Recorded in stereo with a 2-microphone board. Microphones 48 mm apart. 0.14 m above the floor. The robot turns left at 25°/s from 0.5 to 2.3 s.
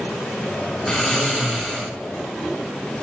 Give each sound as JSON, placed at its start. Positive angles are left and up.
{"t": 0.9, "sound": "snoring", "side_deg": 0, "distance_m": 1.7}